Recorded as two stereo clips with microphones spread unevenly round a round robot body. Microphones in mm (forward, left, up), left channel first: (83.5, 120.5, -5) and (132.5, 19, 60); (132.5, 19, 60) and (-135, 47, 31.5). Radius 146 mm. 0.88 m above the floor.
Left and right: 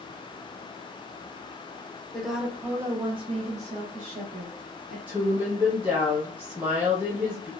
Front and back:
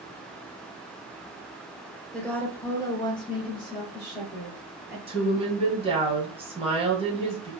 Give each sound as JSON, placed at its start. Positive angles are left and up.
{"t": 2.1, "sound": "a woman speaking", "azimuth_deg": 90, "distance_m": 0.8}
{"t": 5.1, "sound": "a woman speaking", "azimuth_deg": 170, "distance_m": 0.9}